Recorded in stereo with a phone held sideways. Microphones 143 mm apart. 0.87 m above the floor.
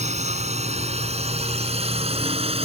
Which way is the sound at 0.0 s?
50° right (ahead or behind).